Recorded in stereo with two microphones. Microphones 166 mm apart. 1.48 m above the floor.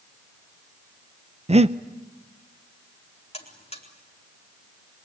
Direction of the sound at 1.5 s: 40° right (ahead or behind).